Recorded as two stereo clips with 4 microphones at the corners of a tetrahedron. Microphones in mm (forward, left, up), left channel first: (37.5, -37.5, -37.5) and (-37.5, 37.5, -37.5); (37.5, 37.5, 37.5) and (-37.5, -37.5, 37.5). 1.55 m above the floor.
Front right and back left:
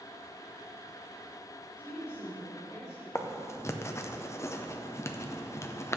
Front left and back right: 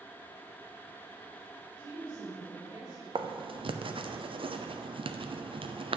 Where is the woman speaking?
110° right, 3 m; by 3.0 s 90° right, 4 m.